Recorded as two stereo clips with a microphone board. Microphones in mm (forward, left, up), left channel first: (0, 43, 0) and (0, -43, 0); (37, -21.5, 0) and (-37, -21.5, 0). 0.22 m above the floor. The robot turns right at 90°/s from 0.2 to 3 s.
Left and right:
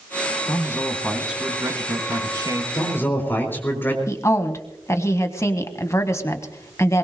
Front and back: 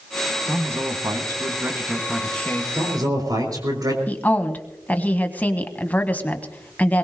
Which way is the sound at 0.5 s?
120° left.